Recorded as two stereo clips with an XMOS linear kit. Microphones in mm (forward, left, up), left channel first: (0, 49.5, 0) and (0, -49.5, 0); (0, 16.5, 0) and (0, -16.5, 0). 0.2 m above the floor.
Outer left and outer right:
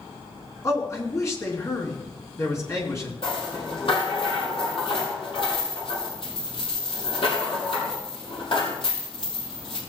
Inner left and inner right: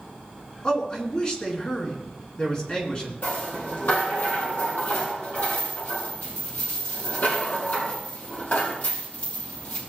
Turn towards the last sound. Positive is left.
turn(degrees=60)  # may be behind; listen again after turning